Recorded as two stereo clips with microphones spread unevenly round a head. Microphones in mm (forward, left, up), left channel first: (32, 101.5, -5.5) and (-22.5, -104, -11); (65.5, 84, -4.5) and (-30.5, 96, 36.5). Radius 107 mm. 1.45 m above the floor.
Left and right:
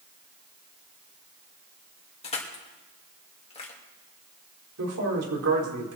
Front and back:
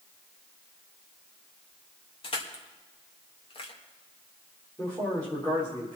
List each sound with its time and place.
2.2 s crushing: 10° left, 2.5 m
4.8 s a man speaking: 85° right, 4 m